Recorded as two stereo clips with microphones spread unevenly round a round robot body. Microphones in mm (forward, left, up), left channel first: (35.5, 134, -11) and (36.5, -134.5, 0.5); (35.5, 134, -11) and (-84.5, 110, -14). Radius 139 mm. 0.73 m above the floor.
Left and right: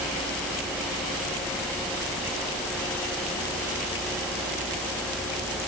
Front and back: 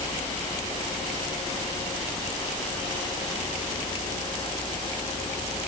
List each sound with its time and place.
Only background noise.